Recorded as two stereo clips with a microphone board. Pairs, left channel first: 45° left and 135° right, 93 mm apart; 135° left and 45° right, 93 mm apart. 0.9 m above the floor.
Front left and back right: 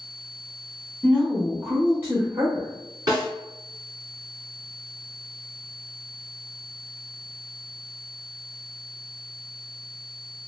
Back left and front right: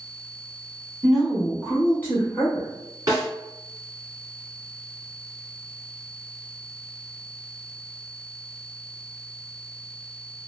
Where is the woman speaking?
20° left, 0.8 m; by 2.7 s 170° right, 1.1 m.